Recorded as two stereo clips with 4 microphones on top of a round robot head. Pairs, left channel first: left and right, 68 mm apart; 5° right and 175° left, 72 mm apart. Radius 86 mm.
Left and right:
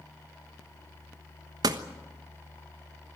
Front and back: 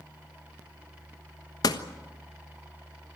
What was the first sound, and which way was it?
A door slam, 50° right.